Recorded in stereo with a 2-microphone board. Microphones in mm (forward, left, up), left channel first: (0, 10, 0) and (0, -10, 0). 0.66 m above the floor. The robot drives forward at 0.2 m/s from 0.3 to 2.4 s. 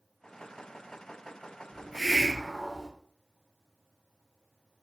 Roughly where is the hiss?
Right.